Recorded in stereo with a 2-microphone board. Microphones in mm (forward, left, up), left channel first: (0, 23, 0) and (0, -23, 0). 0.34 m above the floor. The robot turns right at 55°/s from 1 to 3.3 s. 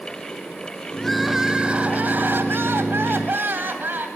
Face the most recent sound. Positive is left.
turn(degrees=-60)